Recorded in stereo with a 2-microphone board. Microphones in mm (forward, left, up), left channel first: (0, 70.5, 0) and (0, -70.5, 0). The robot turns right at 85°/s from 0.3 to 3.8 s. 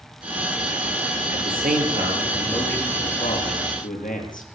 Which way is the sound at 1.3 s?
105° right.